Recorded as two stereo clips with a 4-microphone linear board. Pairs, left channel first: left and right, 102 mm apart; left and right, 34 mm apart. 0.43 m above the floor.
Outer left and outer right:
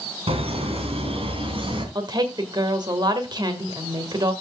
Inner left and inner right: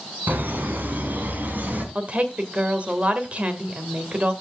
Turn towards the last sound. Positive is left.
turn(degrees=-45)  # may be behind; listen again after turning